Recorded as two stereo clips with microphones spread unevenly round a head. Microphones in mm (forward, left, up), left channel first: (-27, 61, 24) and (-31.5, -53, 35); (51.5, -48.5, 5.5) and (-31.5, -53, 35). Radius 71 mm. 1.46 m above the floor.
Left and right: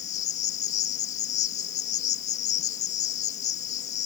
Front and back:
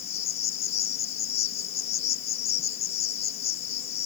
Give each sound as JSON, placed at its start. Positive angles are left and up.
{"t": 0.0, "sound": "an insect", "azimuth_deg": 50}